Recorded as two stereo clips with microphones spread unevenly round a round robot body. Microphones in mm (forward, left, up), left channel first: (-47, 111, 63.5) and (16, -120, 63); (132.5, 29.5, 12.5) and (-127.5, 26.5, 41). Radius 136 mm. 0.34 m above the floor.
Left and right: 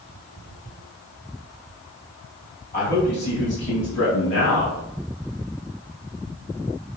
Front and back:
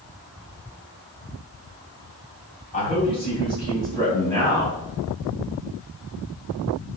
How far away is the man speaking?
About 3 m.